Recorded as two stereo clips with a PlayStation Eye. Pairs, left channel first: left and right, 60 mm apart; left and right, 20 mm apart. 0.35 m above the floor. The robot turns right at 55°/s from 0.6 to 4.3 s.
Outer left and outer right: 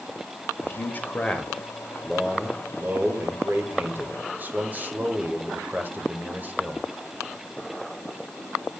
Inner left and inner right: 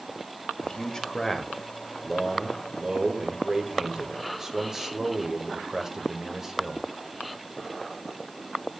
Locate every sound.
0.6 s a man speaking: 110° left, 1.2 m; by 6.9 s 50° right, 1.2 m